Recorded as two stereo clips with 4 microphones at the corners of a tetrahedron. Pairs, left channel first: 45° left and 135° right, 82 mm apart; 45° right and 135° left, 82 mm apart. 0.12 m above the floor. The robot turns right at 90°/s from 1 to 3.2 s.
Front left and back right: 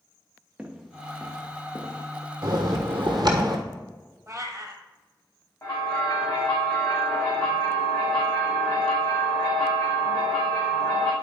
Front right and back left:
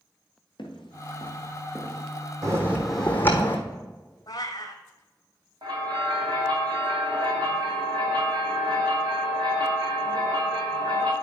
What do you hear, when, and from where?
0.6 s footsteps: 55° right, 1.6 m; by 2.1 s 105° left, 1.4 m
2.4 s a bell: straight behind, 1.5 m; by 3.6 s 110° right, 1.5 m
4.3 s a cat meowing: 85° right, 1.1 m
5.6 s a bell: 110° left, 2.5 m